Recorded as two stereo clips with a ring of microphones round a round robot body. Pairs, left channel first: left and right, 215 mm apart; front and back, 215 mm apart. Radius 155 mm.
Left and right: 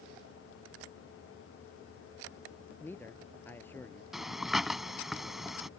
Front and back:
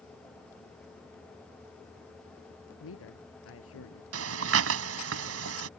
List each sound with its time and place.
2.8 s a man speaking: 10° left
4.1 s breathing: straight behind